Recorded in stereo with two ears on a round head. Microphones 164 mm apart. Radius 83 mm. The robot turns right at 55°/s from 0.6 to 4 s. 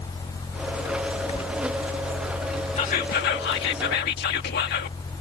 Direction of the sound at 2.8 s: 40° left.